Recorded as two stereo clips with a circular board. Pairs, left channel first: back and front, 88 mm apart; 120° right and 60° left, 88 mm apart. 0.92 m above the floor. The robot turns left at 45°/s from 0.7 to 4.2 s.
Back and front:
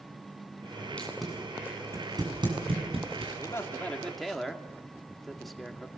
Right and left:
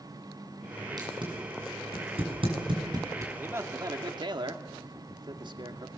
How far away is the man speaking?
About 2.5 m.